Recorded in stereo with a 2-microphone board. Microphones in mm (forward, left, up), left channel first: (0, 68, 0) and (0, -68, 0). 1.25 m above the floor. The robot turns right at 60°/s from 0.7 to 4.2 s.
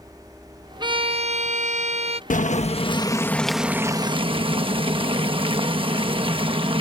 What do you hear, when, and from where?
0.8 s a violin: 140° right; by 2.2 s 60° right
2.3 s boiling: 105° left; by 6.8 s 140° right